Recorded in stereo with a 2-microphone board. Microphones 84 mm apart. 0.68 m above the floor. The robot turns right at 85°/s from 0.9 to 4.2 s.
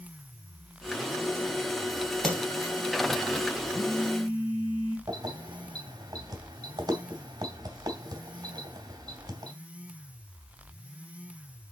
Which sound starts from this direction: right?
Keys jangling, at 5.1 s.